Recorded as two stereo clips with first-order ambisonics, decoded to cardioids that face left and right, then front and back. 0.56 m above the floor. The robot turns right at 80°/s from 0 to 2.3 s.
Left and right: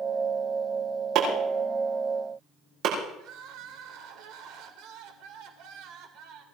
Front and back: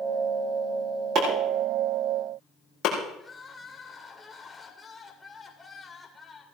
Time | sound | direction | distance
1.1 | chopping | 140° right | 8 m
3.2 | crying | 80° right | 2.5 m